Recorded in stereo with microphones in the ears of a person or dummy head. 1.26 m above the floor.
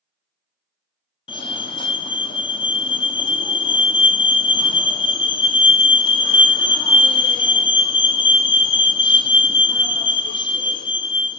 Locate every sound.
1.3 s a fire alarm: 25° left (ahead or behind), 0.9 m